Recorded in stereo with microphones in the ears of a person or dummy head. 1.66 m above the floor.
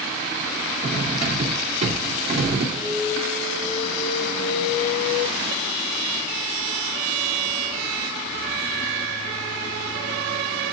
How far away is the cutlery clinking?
About 2.5 m.